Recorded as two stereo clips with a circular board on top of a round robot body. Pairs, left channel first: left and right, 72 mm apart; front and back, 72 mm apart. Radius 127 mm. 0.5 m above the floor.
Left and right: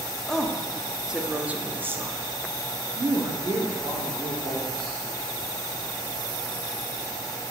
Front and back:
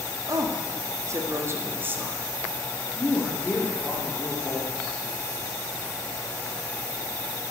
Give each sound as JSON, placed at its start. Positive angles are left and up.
{"t": 0.3, "sound": "a woman speaking", "azimuth_deg": 175, "distance_m": 1.4}